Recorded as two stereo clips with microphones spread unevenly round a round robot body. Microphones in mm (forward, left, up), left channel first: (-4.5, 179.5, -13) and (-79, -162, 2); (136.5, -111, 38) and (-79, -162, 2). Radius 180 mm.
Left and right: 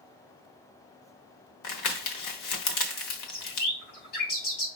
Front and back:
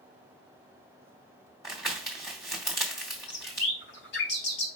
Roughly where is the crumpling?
Left.